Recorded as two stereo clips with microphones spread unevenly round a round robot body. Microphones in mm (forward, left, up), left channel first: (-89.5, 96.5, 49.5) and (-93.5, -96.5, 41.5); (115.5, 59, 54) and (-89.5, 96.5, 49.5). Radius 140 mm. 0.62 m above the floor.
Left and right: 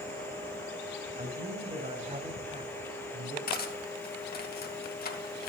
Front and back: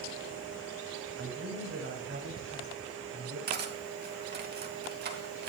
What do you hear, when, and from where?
1.2 s a man speaking: 145° right, 5 m; by 3.4 s 150° right, 7 m
3.5 s cutlery clinking: 130° left, 2.5 m